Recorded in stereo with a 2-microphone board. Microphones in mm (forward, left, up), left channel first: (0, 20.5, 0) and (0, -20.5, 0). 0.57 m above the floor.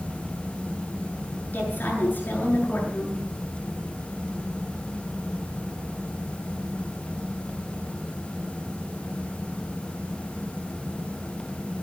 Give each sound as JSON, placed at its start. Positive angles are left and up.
{"t": 1.5, "sound": "a woman speaking", "side_deg": 50, "distance_m": 8.5}